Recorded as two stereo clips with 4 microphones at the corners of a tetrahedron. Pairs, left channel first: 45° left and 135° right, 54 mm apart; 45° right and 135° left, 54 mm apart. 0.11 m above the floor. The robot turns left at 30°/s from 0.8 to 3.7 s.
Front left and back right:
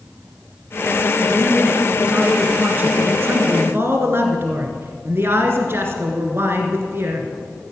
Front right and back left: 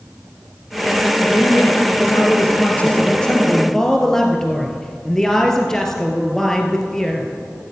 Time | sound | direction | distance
1.2 | a man speaking | 50° right | 1.9 m